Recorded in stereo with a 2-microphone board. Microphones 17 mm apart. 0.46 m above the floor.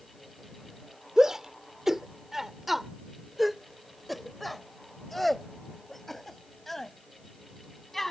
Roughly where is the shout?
Right.